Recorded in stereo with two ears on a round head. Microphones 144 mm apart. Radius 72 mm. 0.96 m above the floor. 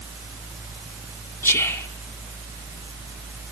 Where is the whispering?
15° left (ahead or behind), 1.8 m.